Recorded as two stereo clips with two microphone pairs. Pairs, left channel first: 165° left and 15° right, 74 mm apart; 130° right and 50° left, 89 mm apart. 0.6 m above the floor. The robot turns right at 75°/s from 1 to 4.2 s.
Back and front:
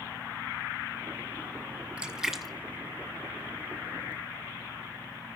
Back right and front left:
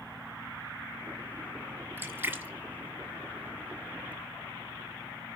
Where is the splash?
40° left, 1.0 m; by 4.1 s 160° right, 1.0 m.